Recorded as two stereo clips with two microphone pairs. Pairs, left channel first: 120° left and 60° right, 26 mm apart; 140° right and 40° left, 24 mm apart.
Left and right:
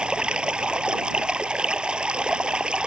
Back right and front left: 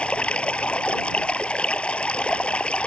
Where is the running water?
105° right.